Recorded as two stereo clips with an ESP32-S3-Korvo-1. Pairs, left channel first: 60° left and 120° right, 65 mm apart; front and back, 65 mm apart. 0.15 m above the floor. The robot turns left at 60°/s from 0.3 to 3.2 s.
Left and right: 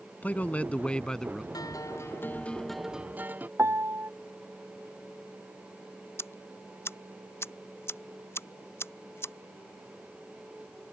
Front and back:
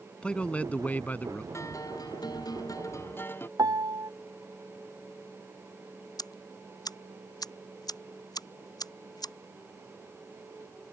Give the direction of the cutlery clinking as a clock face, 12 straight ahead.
I don't hear cutlery clinking.